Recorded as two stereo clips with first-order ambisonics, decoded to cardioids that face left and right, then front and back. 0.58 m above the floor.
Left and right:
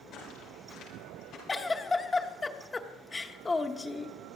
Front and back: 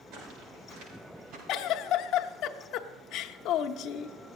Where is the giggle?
15° left, 0.8 m.